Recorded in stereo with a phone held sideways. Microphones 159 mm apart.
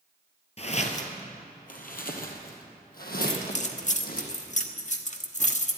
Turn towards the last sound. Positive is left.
turn(degrees=50)  # may be behind; listen again after turning